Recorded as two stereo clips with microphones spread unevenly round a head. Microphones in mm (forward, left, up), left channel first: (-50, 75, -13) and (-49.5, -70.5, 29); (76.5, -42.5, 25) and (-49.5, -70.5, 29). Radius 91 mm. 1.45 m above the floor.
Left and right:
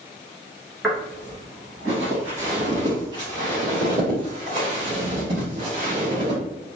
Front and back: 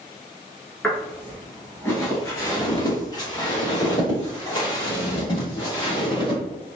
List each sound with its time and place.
0.8 s footsteps: 65° right, 1.5 m; by 6.4 s 40° right, 4 m